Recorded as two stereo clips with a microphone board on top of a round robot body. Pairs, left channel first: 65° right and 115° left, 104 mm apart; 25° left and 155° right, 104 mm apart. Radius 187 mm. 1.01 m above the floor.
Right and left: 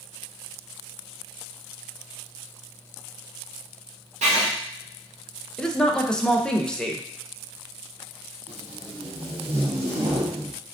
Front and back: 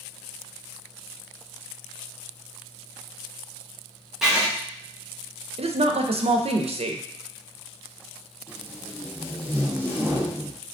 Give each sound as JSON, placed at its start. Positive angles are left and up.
{"t": 4.2, "sound": "writing", "azimuth_deg": 120, "distance_m": 0.7}
{"t": 5.6, "sound": "a woman speaking", "azimuth_deg": -150, "distance_m": 0.7}
{"t": 8.5, "sound": "tape being pulled", "azimuth_deg": 95, "distance_m": 1.6}